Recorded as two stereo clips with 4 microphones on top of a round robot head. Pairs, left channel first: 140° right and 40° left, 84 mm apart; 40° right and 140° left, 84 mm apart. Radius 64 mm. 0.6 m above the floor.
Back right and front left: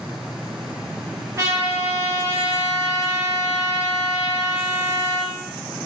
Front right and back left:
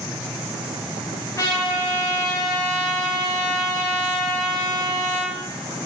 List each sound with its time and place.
1.4 s a trumpet: straight ahead, 1.6 m